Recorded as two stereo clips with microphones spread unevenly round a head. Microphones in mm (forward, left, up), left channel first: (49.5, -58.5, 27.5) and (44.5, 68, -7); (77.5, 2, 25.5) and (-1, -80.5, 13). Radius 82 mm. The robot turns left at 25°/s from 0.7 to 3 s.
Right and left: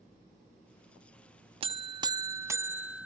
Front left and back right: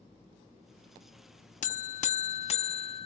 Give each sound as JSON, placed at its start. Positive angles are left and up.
{"t": 1.6, "sound": "a buzzer", "azimuth_deg": 45, "distance_m": 0.8}